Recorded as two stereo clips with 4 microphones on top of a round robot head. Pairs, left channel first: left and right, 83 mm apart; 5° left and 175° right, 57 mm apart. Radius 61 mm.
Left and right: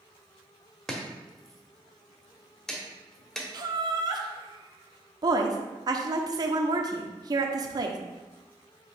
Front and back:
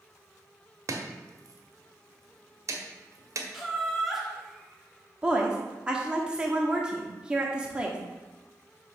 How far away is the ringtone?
I don't hear a ringtone.